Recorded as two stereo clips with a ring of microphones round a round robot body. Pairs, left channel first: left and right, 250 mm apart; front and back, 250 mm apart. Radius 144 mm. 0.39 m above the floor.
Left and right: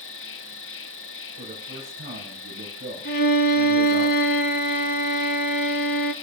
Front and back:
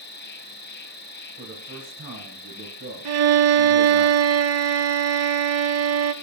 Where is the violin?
150° left, 0.8 m.